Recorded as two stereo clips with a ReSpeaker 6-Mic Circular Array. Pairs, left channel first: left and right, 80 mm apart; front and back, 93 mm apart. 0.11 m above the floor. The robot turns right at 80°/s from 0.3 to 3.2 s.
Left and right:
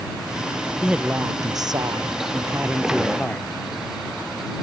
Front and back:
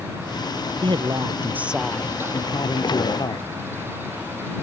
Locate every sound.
0.8 s a man speaking: 170° right; by 3.5 s 20° left